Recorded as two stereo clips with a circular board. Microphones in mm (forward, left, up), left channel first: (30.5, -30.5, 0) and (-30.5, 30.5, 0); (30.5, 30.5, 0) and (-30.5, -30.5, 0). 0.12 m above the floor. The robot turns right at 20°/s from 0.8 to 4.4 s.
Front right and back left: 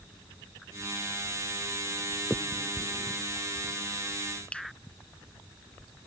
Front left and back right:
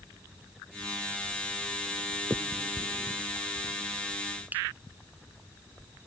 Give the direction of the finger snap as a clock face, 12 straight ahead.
5 o'clock.